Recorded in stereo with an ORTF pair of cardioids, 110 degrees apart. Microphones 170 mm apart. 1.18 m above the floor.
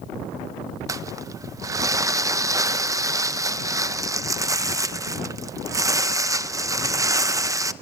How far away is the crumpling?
About 0.7 m.